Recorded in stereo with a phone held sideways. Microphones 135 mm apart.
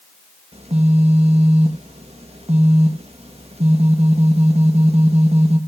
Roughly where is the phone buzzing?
Right.